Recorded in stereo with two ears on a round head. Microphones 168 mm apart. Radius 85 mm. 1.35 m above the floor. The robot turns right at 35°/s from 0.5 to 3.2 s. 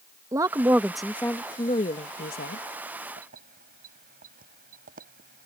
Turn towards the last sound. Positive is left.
turn(degrees=-50)  # may be behind; listen again after turning